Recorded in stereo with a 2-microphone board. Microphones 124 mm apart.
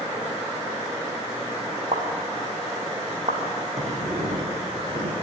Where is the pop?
65° right (ahead or behind), 4.5 m.